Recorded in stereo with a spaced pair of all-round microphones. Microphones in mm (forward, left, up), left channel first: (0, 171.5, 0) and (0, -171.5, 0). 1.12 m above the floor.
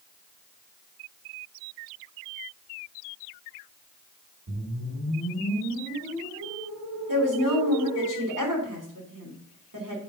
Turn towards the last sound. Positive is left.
turn(degrees=-60)  # may be behind; listen again after turning